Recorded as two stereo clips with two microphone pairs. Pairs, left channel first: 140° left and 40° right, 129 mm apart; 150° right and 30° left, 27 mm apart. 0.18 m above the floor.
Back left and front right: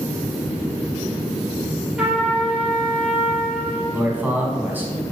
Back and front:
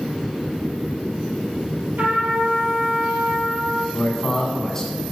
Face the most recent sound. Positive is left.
turn(degrees=-100)